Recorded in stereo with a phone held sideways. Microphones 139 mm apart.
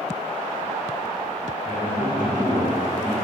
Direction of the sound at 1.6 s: 70° left (ahead or behind).